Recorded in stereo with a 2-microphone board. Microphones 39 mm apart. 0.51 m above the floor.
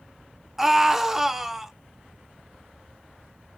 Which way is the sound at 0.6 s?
5° right (ahead or behind).